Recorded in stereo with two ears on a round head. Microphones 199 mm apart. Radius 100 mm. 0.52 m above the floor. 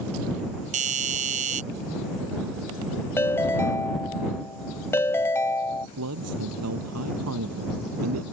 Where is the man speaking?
75° right (ahead or behind).